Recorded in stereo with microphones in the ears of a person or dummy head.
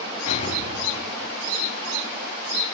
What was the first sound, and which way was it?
An explosion, 50° left (ahead or behind).